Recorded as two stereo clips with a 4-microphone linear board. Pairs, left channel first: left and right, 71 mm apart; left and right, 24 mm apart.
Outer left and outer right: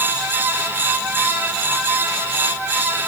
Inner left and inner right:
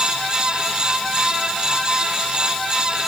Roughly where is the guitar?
No guitar in this recording.